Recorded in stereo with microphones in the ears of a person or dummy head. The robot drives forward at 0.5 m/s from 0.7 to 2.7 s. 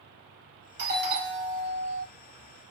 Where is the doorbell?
55° right (ahead or behind), 2.5 m; by 2.1 s 60° right (ahead or behind), 2.5 m.